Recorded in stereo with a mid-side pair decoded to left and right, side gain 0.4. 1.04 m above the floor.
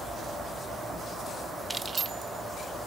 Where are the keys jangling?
25° right, 0.7 m; by 2.9 s 70° right, 1.6 m.